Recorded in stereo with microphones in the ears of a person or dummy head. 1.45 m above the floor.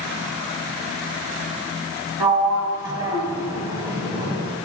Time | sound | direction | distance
2.2 | a sliding door | 20° right (ahead or behind) | 1.7 m